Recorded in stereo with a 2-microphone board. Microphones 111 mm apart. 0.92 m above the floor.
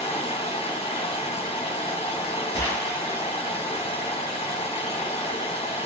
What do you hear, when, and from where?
0.0 s running water: 60° left (ahead or behind), 1.8 m
2.5 s a gunshot: 35° left (ahead or behind), 1.4 m